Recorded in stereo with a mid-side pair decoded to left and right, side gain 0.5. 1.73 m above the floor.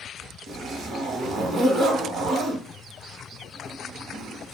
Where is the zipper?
55° right, 0.9 m.